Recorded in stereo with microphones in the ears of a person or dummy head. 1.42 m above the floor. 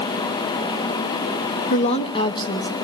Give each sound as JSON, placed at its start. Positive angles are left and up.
{"t": 1.7, "sound": "a woman speaking", "side_deg": 40, "distance_m": 1.2}